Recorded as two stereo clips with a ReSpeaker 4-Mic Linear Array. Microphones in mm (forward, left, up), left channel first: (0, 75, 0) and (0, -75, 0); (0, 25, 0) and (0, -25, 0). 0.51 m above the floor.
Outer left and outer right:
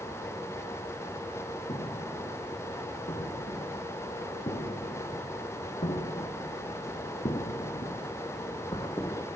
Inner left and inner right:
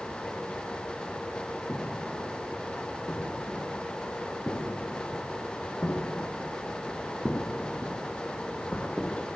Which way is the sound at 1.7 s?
50° left (ahead or behind).